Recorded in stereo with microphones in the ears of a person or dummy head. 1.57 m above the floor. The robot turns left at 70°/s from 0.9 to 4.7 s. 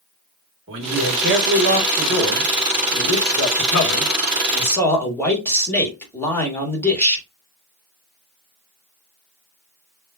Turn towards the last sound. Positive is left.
turn(degrees=15)